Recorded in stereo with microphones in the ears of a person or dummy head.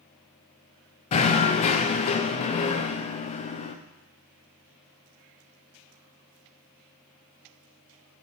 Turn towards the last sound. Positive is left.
turn(degrees=30)  # may be behind; listen again after turning